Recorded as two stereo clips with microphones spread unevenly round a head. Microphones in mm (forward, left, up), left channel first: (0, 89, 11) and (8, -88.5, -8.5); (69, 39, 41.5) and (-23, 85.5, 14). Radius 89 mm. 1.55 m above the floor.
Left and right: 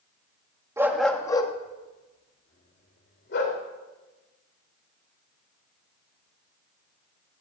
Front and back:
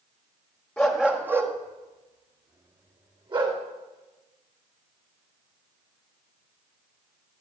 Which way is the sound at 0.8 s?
20° right.